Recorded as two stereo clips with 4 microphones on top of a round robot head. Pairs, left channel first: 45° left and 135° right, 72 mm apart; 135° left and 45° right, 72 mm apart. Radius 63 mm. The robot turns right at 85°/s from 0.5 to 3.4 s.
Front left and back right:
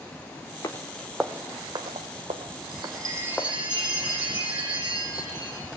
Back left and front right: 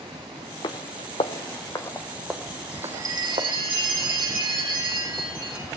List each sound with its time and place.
0.6 s footsteps: 100° left, 1.0 m; by 3.5 s 35° right, 2.5 m
2.7 s a chime: 115° right, 7.5 m; by 5.7 s 60° right, 7.5 m